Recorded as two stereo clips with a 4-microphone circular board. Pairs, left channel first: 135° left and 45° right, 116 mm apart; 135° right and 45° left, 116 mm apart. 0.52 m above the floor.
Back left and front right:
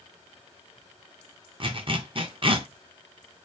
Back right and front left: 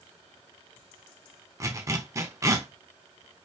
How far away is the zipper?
About 0.6 m.